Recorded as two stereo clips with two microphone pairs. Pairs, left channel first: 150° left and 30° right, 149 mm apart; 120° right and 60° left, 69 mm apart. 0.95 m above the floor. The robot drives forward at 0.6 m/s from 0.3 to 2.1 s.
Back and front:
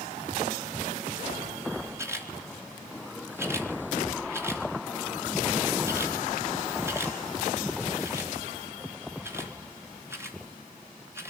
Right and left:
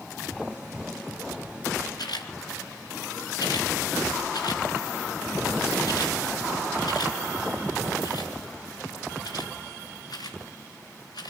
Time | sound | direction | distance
2.0 | a camera shutter | 100° right | 3.5 m